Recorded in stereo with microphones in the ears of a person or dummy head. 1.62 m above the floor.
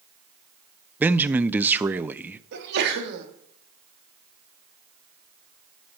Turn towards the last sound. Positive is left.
turn(degrees=-55)  # may be behind; listen again after turning